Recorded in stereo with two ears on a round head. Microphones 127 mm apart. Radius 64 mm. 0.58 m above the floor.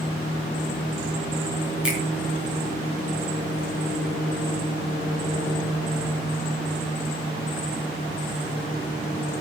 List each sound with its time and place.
1.8 s a finger snap: 5° right (ahead or behind), 5.5 m